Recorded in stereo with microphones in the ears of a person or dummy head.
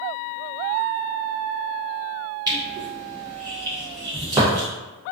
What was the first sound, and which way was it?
Crushing, 20° right (ahead or behind).